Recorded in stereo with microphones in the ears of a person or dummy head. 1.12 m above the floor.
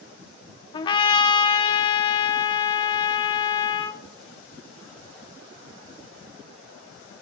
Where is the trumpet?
35° left (ahead or behind), 1.0 m.